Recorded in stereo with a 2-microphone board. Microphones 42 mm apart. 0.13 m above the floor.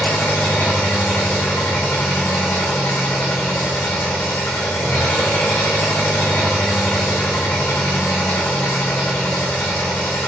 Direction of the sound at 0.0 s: 60° left (ahead or behind).